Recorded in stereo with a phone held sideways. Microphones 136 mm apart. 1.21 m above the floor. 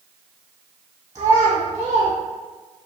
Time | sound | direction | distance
1.1 | a child speaking | 50° right (ahead or behind) | 0.9 m